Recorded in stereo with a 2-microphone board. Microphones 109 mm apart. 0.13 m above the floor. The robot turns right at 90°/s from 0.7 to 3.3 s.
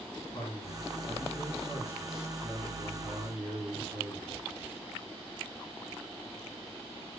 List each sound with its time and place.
0.3 s a man speaking: 55° left, 7 m; by 4.3 s 70° right, 7 m